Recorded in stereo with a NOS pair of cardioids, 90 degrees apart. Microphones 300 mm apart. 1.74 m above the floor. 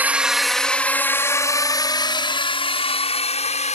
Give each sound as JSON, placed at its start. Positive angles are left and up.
{"t": 0.0, "sound": "a drone", "azimuth_deg": -5}